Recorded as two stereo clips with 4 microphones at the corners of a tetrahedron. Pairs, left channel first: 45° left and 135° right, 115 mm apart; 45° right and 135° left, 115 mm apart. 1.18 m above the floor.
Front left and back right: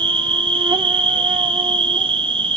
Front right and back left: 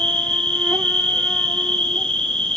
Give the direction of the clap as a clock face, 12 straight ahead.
I don't hear a clap.